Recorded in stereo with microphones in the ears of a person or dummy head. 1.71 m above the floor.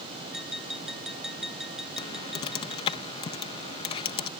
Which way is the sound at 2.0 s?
25° left (ahead or behind).